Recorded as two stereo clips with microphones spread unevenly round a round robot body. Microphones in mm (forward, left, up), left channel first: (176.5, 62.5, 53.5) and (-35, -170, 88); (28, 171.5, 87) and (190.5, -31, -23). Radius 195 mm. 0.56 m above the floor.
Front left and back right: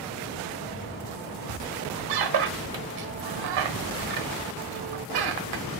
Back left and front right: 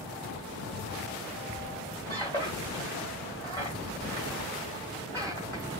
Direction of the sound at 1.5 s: 150° right.